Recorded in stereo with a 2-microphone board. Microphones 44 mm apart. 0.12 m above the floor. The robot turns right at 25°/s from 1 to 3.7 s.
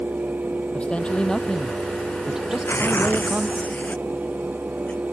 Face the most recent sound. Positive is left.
turn(degrees=145)